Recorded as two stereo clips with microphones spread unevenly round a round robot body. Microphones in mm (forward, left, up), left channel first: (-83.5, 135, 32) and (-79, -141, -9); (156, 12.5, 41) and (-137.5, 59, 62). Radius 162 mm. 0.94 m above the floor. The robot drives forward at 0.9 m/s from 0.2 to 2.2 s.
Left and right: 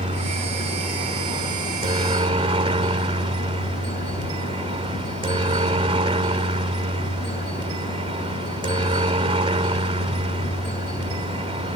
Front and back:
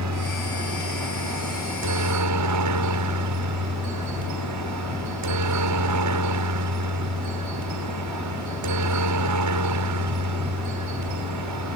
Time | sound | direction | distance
0.0 | a helicopter | 155° right | ?